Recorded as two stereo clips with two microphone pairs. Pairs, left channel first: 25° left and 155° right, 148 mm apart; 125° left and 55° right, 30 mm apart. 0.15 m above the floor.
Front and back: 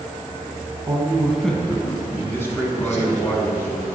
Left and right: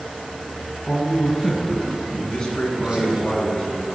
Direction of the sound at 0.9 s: 175° right.